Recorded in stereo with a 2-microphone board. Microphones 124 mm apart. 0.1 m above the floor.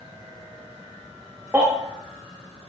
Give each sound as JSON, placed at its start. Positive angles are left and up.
{"t": 1.5, "sound": "a baby crying", "side_deg": -15, "distance_m": 3.5}